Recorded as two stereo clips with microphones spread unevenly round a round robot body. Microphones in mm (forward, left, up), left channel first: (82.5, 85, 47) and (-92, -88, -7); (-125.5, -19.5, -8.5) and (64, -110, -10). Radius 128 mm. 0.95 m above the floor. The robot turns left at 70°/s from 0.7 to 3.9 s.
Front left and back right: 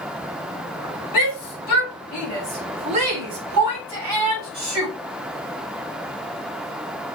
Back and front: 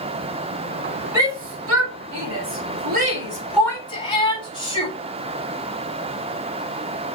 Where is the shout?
55° left, 5 m; by 4.9 s 135° right, 5 m.